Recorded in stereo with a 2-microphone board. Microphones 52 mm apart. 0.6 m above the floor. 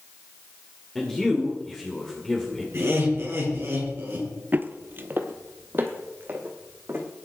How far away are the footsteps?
About 0.7 m.